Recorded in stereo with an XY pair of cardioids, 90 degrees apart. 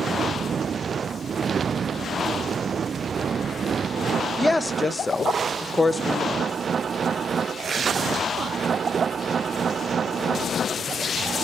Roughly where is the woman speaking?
Ahead.